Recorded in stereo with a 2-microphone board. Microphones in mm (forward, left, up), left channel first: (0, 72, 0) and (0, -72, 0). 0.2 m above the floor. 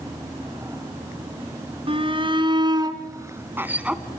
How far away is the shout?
About 2 m.